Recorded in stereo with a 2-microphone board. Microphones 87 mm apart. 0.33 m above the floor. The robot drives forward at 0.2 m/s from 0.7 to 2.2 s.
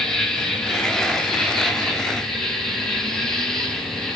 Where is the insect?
10° left (ahead or behind), 0.8 m; by 4.2 s 5° left (ahead or behind), 1.1 m.